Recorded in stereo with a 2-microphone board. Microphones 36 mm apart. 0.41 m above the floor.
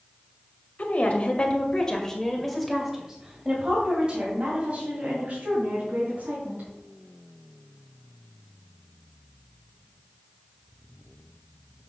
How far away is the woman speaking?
About 2 m.